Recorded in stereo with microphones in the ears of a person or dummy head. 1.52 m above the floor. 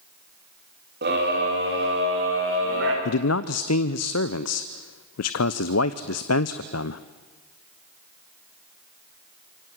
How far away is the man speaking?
About 0.8 m.